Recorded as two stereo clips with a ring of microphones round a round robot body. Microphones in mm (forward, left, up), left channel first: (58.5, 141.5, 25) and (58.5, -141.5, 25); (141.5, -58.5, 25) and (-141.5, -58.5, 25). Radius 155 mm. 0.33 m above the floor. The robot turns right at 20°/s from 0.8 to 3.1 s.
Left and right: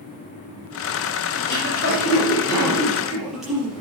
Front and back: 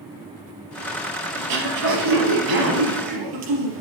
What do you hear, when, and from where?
1.4 s throat clearing: 145° left, 4.5 m; by 3.8 s straight behind, 4.5 m